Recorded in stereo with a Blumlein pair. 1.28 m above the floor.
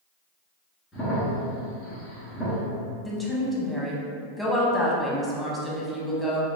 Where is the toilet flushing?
No toilet flushing in this recording.